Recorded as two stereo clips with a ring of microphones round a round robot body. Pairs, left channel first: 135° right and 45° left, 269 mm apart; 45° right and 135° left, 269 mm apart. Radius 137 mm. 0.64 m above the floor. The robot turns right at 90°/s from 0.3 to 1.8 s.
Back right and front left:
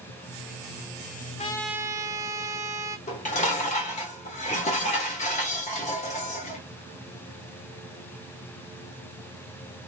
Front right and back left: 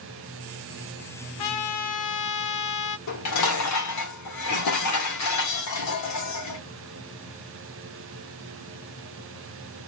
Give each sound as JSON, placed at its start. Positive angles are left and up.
{"t": 1.4, "sound": "a trumpet", "azimuth_deg": -70, "distance_m": 0.8}
{"t": 3.1, "sound": "dishes clattering", "azimuth_deg": -70, "distance_m": 1.3}